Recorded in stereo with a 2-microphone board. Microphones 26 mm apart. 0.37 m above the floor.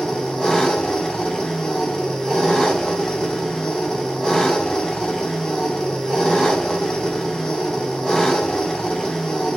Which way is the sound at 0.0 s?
25° left (ahead or behind).